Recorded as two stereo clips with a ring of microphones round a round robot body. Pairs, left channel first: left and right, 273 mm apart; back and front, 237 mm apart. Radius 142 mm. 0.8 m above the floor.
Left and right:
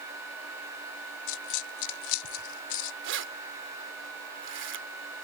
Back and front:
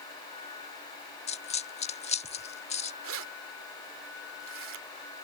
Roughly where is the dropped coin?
Behind left.